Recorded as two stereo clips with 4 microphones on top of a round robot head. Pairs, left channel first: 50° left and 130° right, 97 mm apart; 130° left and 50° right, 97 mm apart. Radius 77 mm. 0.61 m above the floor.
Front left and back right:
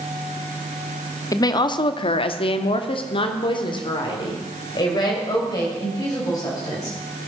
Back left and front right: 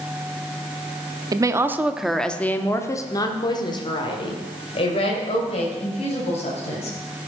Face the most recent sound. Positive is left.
turn(degrees=105)